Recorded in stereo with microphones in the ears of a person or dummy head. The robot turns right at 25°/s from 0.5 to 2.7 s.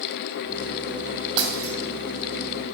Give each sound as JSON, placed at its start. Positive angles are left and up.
{"t": 1.4, "sound": "breaking glass", "side_deg": -30, "distance_m": 3.0}